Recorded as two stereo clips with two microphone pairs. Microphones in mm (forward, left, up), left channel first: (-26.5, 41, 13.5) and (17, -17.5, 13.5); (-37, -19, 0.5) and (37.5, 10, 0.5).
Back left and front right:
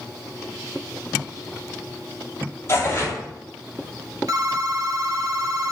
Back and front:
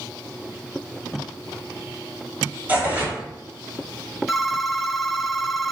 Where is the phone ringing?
70° right, 0.7 m.